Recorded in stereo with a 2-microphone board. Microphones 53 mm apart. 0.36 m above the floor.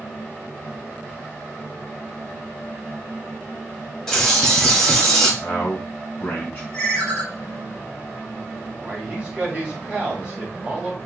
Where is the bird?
10° left (ahead or behind), 1.5 m.